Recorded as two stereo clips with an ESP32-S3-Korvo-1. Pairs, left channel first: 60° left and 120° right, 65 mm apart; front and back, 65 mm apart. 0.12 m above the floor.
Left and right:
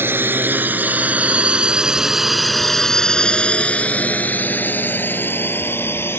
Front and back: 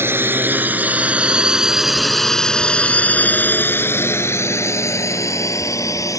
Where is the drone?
155° right; by 6.2 s 15° left.